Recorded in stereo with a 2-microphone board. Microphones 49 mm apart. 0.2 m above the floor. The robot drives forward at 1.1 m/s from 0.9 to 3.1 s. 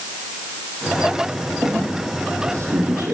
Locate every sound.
1.6 s a squeak: 80° right, 5.5 m; by 3.1 s 75° right (ahead or behind), 5.5 m